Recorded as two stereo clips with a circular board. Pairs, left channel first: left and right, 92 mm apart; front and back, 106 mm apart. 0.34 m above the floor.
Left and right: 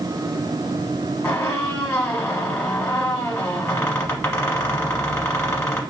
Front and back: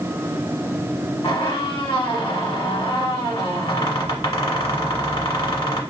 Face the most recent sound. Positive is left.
turn(degrees=30)